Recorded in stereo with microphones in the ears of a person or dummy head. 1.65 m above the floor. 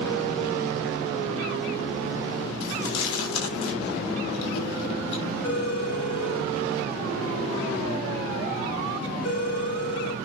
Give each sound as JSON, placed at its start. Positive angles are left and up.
{"t": 2.6, "sound": "chewing", "side_deg": 75, "distance_m": 6.5}
{"t": 5.4, "sound": "a phone ringing", "side_deg": 75, "distance_m": 8.5}